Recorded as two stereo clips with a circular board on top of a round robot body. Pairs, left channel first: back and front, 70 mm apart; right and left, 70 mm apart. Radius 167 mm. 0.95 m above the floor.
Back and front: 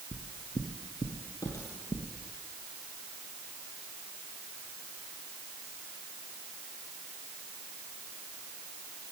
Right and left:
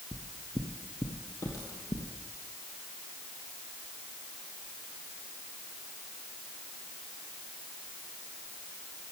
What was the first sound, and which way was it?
Footsteps, 160° right.